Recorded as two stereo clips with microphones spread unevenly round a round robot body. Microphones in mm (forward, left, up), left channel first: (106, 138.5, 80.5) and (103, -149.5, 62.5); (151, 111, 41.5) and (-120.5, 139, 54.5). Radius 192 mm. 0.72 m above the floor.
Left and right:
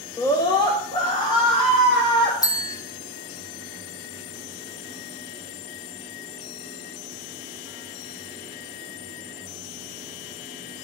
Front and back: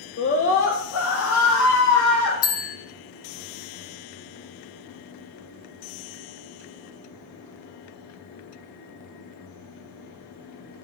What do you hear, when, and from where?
0.2 s a scream: 15° left, 1.7 m
2.4 s a bell: 10° left, 1.7 m